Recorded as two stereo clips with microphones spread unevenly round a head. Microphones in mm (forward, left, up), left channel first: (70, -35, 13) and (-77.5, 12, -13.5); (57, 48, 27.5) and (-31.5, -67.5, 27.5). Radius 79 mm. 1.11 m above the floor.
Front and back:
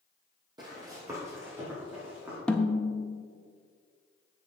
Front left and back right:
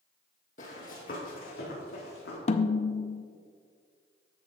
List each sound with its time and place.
0.6 s running footsteps: 95° left, 2.5 m; by 2.4 s 80° left, 4.5 m
2.5 s a snare drum: 75° left, 0.6 m